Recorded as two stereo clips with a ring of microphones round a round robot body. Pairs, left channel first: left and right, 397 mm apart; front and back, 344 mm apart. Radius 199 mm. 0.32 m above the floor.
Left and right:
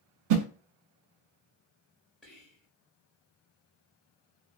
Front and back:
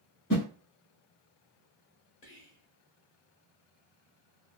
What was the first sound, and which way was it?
A whoosh, 65° right.